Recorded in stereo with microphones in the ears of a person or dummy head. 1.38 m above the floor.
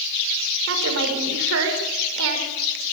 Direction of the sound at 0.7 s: 75° right (ahead or behind).